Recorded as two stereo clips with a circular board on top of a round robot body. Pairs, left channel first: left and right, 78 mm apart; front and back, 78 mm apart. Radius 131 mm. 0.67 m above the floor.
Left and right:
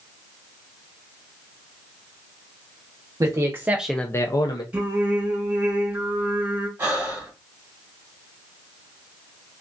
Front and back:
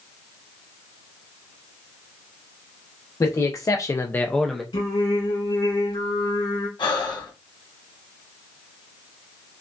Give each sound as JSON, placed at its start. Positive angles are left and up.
{"t": 3.2, "sound": "a man speaking", "azimuth_deg": -50, "distance_m": 1.0}
{"t": 4.7, "sound": "singing", "azimuth_deg": -20, "distance_m": 2.0}
{"t": 6.8, "sound": "breathing", "azimuth_deg": -25, "distance_m": 1.4}